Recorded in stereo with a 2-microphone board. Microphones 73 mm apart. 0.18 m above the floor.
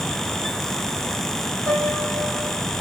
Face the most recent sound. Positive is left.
turn(degrees=-60)  # may be behind; listen again after turning